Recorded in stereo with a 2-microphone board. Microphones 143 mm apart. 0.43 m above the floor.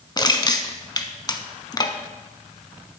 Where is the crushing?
30° left (ahead or behind), 0.7 m.